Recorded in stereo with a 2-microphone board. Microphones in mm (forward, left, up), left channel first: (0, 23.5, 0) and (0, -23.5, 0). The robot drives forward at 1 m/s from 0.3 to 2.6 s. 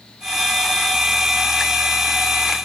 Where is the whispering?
I don't hear whispering.